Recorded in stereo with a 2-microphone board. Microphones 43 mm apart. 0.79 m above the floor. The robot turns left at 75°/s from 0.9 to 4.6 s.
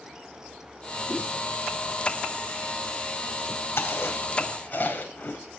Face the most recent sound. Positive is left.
turn(degrees=45)  # may be behind; listen again after turning